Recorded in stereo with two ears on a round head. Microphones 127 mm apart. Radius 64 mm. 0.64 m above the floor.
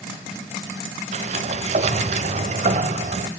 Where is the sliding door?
50° right (ahead or behind), 0.6 m.